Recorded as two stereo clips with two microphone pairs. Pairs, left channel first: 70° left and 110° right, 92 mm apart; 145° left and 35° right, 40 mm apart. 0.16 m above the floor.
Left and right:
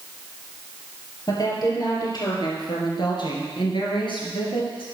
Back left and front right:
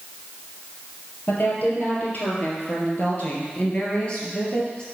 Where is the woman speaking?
115° left, 4 m; by 4.8 s 75° left, 3.5 m.